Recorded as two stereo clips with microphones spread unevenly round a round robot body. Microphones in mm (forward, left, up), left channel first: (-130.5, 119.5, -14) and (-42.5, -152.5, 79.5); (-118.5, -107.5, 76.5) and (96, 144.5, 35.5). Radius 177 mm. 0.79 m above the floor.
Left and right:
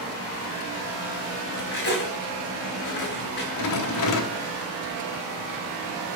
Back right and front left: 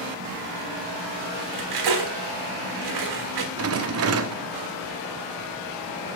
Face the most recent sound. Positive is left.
turn(degrees=95)